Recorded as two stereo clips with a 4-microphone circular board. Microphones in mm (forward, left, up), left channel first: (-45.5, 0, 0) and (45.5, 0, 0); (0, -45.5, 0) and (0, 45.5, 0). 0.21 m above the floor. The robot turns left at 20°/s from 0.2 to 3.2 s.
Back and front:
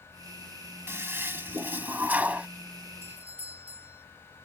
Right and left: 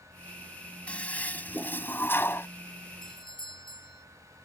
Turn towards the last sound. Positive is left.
turn(degrees=-70)